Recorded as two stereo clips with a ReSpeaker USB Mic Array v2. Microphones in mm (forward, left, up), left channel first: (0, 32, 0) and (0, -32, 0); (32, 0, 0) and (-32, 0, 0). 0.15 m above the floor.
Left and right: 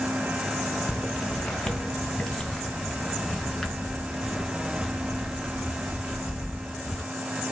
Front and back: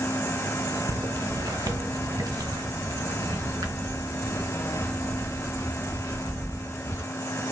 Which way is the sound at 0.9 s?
170° left.